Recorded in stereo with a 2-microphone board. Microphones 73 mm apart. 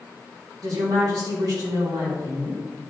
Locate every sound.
0.6 s a woman speaking: 55° right (ahead or behind), 3 m